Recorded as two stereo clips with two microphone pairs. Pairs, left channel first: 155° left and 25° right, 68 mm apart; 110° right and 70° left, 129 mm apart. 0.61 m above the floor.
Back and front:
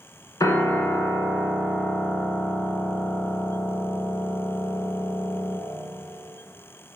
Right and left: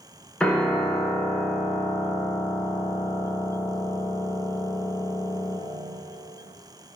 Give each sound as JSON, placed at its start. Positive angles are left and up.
{"t": 0.4, "sound": "a piano", "azimuth_deg": 170, "distance_m": 1.1}